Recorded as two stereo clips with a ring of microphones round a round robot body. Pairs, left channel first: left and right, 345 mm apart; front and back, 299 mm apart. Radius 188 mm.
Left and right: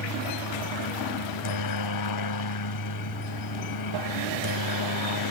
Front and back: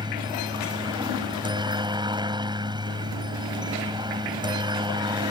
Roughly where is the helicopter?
Left.